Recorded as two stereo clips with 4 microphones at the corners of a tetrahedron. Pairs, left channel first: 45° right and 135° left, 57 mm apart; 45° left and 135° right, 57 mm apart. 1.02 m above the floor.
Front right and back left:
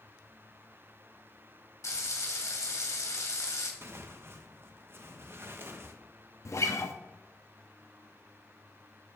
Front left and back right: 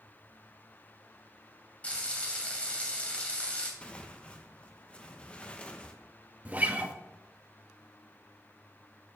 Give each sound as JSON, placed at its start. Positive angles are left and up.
{"t": 1.8, "sound": "frying", "azimuth_deg": -25, "distance_m": 2.5}
{"t": 3.8, "sound": "tearing paper", "azimuth_deg": 110, "distance_m": 1.0}
{"t": 6.5, "sound": "a guitar", "azimuth_deg": -75, "distance_m": 1.0}